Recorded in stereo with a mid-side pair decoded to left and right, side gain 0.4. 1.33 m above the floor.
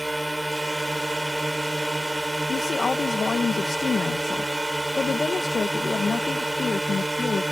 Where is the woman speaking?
45° left.